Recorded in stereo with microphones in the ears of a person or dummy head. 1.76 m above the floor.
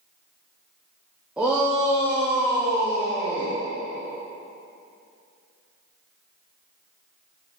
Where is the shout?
5° right (ahead or behind), 0.9 m.